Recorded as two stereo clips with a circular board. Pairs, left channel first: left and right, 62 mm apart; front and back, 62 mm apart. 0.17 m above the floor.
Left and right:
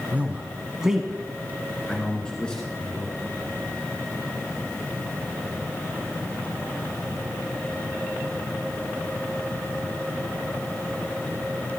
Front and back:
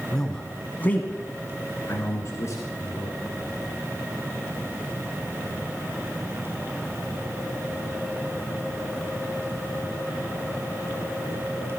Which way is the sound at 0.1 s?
75° right.